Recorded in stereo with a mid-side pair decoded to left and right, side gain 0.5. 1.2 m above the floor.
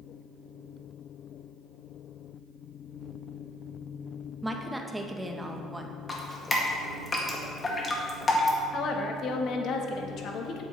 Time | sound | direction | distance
4.4 | a woman speaking | 10° right | 1.2 m
6.1 | dripping | 30° left | 1.8 m
8.7 | a woman speaking | 60° left | 1.4 m